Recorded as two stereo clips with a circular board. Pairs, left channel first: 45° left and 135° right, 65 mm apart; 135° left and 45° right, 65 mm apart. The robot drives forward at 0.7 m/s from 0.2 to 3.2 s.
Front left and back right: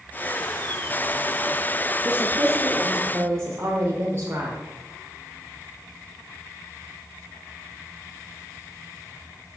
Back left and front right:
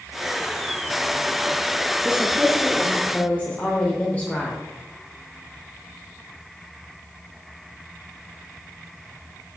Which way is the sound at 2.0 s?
85° right.